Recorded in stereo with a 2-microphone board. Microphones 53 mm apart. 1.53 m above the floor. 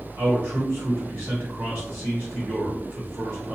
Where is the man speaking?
45° right (ahead or behind), 1.4 m.